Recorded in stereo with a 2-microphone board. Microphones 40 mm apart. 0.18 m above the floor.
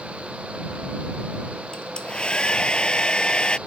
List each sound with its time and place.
1.7 s a hair dryer: 25° left (ahead or behind)